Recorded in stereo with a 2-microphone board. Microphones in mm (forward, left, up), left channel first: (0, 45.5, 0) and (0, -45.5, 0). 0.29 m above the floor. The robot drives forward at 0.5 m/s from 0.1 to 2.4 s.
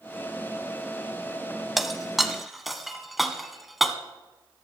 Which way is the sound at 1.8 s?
Centre (ahead or behind).